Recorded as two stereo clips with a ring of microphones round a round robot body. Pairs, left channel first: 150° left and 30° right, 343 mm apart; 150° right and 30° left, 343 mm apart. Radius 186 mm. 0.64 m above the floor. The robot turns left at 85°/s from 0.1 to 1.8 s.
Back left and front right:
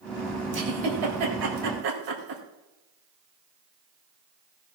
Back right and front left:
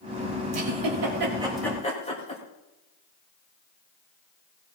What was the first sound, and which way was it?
A giggle, 30° left.